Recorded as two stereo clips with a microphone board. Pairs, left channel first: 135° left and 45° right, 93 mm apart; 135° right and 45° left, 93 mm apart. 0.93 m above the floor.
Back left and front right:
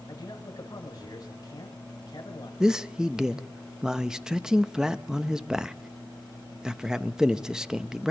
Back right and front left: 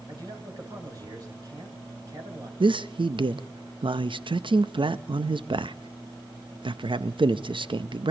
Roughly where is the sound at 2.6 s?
Ahead left.